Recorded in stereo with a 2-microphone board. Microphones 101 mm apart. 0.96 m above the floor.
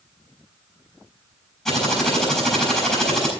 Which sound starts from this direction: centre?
Typing on a keyboard, at 1.6 s.